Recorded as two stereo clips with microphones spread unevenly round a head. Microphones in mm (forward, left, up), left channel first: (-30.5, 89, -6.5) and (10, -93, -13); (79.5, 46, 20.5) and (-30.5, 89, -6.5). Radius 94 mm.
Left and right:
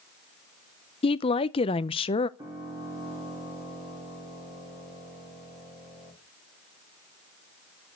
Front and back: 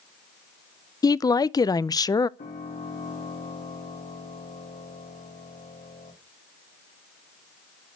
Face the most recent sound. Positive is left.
turn(degrees=-5)